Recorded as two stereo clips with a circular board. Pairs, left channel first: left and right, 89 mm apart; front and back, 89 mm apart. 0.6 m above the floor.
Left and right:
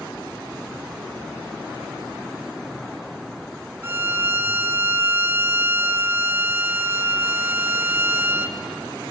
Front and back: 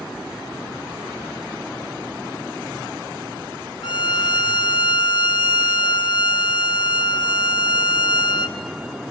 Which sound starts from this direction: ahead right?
A violin, at 3.8 s.